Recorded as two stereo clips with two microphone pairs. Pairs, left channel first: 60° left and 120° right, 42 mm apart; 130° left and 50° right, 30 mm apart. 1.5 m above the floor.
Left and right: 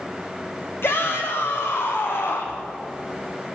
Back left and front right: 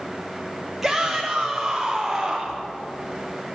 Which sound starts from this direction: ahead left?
A shout, at 0.8 s.